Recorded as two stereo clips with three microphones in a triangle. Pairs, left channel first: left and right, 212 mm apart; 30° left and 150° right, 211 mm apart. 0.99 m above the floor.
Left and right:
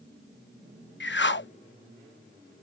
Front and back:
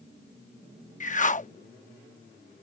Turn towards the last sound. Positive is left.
turn(degrees=75)